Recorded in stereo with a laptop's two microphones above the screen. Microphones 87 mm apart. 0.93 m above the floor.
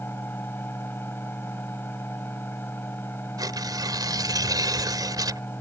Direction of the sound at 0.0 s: 25° left (ahead or behind).